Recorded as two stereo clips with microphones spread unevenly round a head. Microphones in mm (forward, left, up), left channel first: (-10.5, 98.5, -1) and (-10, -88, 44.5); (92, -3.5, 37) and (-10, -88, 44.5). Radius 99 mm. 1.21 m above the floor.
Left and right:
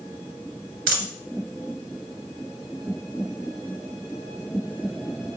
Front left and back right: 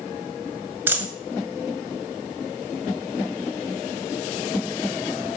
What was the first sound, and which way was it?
A dropped coin, 70° right.